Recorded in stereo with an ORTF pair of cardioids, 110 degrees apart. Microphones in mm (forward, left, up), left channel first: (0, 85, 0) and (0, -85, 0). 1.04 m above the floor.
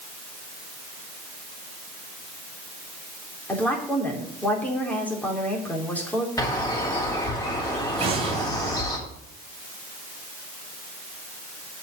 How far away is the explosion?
About 2.5 m.